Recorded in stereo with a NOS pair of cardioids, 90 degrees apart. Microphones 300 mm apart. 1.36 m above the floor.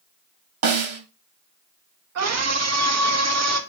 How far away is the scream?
About 2.5 m.